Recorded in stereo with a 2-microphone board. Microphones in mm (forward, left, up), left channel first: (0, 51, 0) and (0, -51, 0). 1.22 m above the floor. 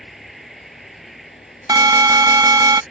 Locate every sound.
0.0 s an insect: centre (ahead or behind)
1.7 s an alarm: 35° right (ahead or behind)